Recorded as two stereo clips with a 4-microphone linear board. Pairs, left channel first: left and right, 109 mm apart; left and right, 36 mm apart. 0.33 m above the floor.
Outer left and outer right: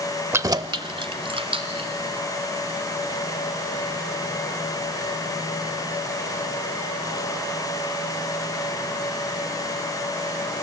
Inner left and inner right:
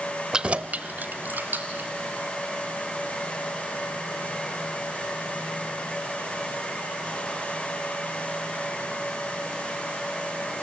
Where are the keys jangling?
20° right (ahead or behind), 0.7 m; by 1.9 s 60° right (ahead or behind), 3 m.